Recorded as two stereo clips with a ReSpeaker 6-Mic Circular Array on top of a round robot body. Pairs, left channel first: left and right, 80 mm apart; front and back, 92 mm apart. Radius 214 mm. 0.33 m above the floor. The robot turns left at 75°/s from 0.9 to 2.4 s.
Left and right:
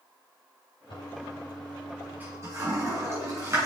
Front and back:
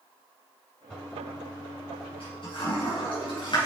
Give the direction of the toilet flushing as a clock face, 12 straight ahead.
9 o'clock.